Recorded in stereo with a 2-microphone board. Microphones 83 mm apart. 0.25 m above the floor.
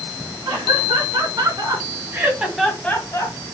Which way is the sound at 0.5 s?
50° right (ahead or behind).